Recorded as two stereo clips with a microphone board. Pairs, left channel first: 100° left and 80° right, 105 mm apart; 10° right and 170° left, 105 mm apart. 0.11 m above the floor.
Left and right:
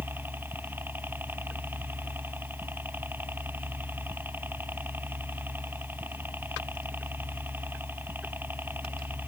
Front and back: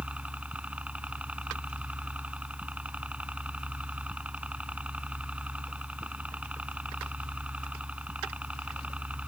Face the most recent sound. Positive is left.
turn(degrees=-125)